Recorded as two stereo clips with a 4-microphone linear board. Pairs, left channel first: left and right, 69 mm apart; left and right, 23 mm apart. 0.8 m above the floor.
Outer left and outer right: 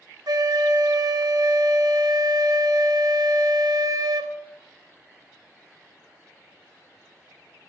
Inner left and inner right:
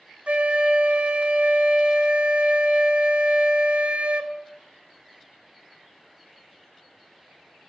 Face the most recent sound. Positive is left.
turn(degrees=-70)  # may be behind; listen again after turning